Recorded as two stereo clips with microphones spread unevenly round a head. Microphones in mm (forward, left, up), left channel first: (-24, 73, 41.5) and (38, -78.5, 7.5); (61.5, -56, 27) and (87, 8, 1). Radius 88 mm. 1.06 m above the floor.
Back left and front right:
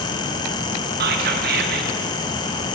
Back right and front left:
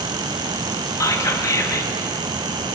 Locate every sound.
1.0 s whispering: 60° right, 2.0 m